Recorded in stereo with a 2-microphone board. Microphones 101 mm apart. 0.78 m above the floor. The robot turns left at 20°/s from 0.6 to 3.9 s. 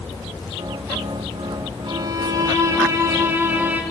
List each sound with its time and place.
1.9 s a violin: 120° right, 1.4 m; by 3.8 s 160° right, 1.4 m